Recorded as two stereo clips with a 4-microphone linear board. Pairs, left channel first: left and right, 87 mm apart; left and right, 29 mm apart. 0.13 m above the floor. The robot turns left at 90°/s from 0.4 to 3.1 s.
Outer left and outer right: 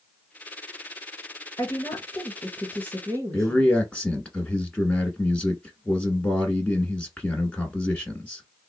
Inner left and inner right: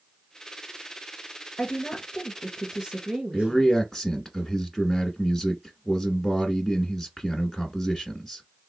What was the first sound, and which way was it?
A woman speaking, 75° left.